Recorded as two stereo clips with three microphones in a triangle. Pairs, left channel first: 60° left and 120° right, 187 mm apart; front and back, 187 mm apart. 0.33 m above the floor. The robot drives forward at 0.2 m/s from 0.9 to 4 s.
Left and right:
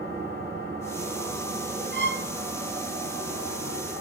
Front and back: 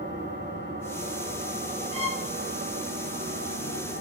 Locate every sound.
0.0 s an engine running: 155° right, 5 m
1.9 s a violin: 125° right, 1.1 m; by 2.3 s 130° right, 1.2 m